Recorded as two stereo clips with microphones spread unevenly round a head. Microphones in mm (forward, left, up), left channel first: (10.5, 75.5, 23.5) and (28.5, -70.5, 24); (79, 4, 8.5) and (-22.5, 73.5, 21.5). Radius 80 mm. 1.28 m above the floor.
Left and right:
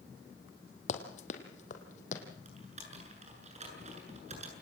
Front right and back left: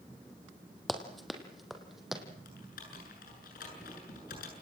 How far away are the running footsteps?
About 3 m.